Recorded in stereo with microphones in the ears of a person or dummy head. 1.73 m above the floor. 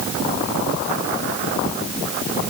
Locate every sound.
Only background noise.